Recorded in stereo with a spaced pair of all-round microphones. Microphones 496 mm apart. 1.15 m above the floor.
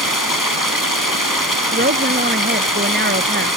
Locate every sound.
0.0 s running water: 40° left (ahead or behind)
1.7 s a woman speaking: 20° right (ahead or behind)